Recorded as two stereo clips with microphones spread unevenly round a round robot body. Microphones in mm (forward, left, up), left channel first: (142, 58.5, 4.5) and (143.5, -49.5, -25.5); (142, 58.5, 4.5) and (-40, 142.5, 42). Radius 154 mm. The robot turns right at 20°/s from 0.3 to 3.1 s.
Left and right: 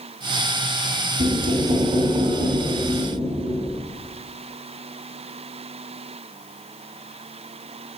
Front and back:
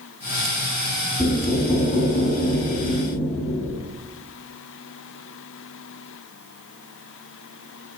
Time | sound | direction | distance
1.2 | knocking | 95° right | 5.5 m